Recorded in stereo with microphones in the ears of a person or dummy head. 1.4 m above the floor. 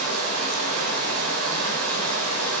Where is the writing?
I don't hear writing.